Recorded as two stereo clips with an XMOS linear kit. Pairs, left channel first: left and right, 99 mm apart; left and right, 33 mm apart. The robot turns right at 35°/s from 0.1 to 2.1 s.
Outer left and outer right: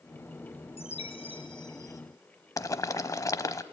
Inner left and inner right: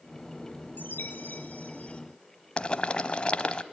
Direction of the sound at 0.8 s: 105° left.